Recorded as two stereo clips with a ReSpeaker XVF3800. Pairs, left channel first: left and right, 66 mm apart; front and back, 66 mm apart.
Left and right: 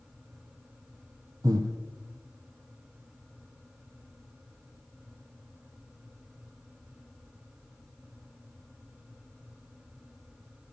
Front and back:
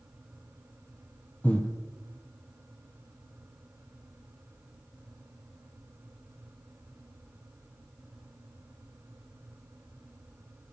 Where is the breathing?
70° right, 1.1 m.